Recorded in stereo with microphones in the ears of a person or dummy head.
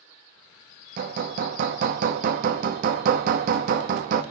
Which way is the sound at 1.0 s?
55° right (ahead or behind).